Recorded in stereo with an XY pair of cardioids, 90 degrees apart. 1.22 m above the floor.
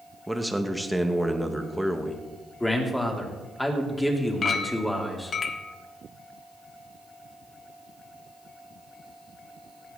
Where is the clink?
50° left, 1.2 m.